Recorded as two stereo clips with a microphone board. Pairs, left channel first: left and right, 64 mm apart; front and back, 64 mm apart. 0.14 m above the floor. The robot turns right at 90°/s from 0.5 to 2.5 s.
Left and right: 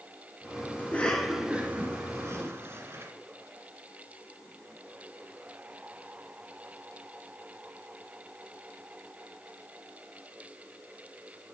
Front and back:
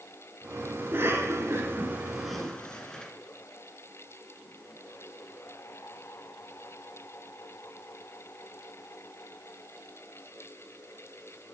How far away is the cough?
About 1.7 m.